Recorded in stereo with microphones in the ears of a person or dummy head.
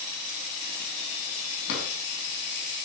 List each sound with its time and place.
1.7 s a drawer: 75° left (ahead or behind), 5 m